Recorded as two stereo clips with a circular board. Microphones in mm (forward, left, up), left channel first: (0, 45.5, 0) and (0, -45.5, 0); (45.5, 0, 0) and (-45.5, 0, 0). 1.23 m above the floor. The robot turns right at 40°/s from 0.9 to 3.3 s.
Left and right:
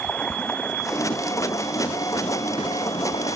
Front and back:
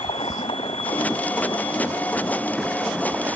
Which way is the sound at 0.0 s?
15° left.